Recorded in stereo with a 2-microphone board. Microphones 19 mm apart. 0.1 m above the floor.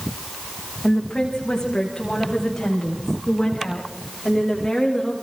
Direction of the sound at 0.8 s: 45° left (ahead or behind).